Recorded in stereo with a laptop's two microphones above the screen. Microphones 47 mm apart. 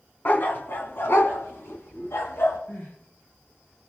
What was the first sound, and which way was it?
A dog barking, 45° left (ahead or behind).